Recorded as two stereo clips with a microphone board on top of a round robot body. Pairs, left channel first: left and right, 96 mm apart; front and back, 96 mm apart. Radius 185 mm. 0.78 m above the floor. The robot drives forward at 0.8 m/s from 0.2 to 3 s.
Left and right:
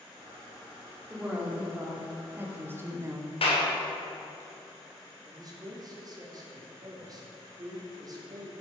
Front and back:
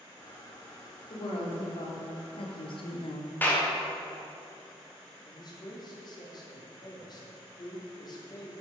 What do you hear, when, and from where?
1.1 s a woman speaking: 10° right, 2.5 m; by 3.4 s 30° right, 1.3 m
3.4 s a clap: 70° left, 2.5 m
5.2 s a man speaking: 40° right, 2.5 m